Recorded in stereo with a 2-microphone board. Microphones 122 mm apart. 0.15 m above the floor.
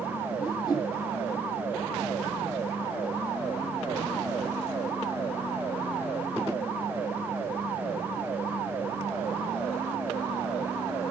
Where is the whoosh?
30° left (ahead or behind), 4.5 m.